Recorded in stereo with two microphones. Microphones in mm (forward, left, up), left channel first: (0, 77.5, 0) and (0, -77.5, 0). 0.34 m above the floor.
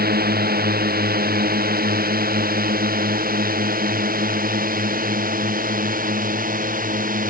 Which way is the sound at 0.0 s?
75° right (ahead or behind).